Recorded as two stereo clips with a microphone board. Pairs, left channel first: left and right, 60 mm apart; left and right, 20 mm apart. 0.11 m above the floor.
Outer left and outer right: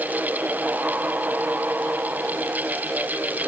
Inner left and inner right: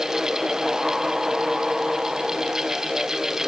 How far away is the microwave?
No microwave in this recording.